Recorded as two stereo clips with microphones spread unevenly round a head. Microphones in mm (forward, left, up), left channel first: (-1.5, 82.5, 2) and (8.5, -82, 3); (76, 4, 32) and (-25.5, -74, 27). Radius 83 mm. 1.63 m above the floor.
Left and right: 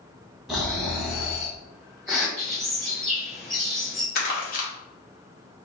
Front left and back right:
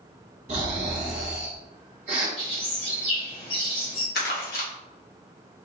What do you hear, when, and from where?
0.5 s snoring: 175° right, 1.1 m
2.4 s a bird: 5° left, 1.5 m
4.2 s crumpling: 55° left, 1.3 m